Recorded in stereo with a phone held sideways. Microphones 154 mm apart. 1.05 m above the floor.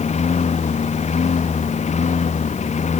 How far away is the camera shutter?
I don't hear a camera shutter.